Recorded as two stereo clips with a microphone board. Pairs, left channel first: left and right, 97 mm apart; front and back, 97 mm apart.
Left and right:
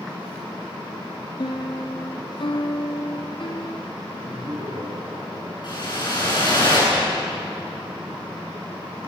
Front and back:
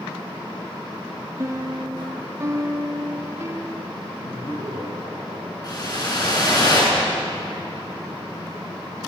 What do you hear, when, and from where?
1.4 s a piano: 120° left, 1.7 m
4.1 s laughter: 35° right, 9 m
5.6 s a whoosh: 45° left, 9.5 m